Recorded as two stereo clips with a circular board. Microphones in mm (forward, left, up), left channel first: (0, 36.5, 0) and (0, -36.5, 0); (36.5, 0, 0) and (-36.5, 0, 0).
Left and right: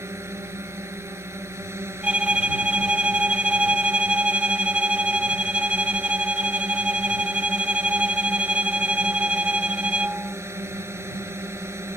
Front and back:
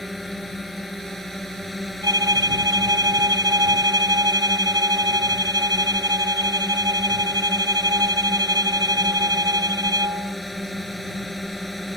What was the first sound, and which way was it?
A drone, 90° right.